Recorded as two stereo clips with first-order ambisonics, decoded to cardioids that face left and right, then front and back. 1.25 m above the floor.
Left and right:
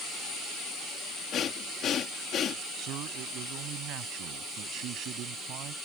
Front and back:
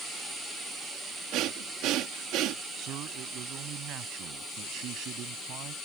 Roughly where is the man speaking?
Behind right.